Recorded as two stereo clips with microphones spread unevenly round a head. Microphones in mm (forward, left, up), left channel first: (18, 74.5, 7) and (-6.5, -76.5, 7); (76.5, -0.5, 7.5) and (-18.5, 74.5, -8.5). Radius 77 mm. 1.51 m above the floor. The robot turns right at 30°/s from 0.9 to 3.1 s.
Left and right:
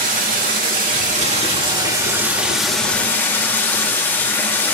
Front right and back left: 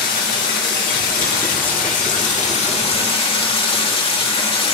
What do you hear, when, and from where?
0.0 s running water: 60° right, 2.5 m; by 4.8 s 5° left, 2.5 m